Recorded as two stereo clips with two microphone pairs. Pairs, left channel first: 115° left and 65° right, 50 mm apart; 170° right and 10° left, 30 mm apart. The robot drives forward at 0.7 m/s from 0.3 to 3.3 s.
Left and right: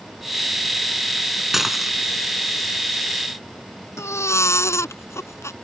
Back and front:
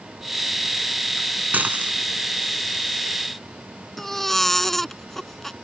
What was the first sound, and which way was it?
Dishes clattering, 15° left.